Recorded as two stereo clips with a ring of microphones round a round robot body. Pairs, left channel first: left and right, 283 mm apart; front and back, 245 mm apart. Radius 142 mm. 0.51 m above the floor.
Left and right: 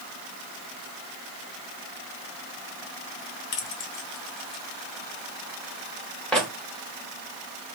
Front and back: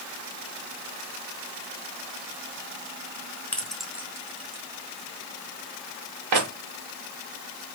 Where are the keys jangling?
85° left, 1.0 m; by 6.5 s straight behind, 1.2 m.